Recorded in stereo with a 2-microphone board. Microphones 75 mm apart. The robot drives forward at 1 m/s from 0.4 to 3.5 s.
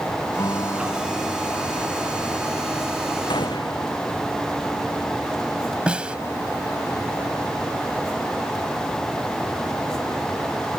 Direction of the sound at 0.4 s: 50° left (ahead or behind).